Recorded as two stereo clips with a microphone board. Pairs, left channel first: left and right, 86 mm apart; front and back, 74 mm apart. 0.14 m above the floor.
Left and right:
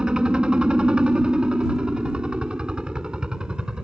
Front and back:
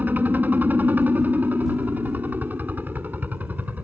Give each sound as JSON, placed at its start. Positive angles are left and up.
{"t": 0.0, "sound": "a helicopter", "azimuth_deg": -155}